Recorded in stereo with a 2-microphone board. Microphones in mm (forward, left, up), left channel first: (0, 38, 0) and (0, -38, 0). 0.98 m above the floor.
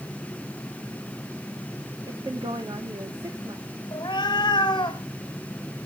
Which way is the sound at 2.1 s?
75° right (ahead or behind).